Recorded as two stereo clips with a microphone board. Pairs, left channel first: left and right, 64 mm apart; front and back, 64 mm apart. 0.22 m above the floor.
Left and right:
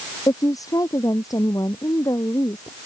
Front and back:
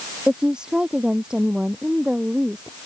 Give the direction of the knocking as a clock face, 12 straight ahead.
I don't hear knocking.